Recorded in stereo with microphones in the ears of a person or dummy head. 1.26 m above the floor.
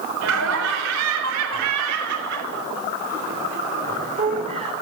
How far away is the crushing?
I don't hear crushing.